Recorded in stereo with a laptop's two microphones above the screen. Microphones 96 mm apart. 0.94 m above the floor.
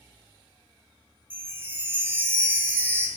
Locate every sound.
1.3 s a chime: 20° right (ahead or behind), 0.8 m